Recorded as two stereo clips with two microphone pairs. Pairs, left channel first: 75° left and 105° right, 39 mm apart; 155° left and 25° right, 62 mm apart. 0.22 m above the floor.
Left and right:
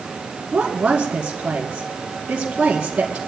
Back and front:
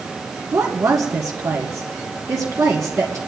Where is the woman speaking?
45° right, 2 m.